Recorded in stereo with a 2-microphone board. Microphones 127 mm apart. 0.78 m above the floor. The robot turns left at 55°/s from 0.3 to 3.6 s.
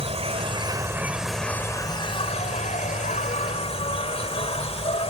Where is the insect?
125° right; by 5.1 s 55° left.